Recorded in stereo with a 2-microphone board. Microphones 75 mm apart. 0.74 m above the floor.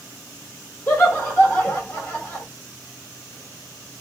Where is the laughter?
25° left (ahead or behind), 3 m.